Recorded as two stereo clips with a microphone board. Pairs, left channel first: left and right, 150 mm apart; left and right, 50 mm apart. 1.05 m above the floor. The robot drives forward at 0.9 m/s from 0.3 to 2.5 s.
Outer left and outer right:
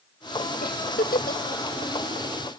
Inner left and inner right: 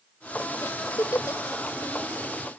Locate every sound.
0.6 s a giggle: 80° left; by 1.4 s 85° left